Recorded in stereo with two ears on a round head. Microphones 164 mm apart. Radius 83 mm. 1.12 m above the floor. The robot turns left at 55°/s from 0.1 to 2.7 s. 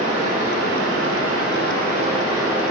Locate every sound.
0.0 s running water: 35° right, 0.8 m; by 2.7 s 175° right, 0.8 m